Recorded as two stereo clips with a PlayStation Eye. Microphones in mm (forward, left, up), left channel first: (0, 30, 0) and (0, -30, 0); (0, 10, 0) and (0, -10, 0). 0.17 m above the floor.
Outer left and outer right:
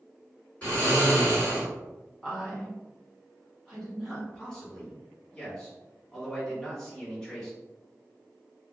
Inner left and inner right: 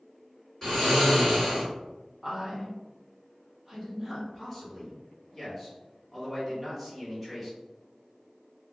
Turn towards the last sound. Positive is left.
turn(degrees=10)  # may be behind; listen again after turning